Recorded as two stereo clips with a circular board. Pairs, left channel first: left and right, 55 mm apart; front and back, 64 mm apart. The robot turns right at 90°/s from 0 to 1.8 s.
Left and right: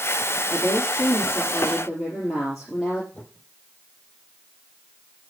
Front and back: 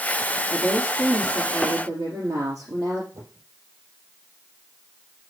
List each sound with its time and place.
0.5 s a woman speaking: 65° left, 4.5 m; by 3.0 s 175° right, 4.5 m
3.1 s a whoosh: 150° left, 7 m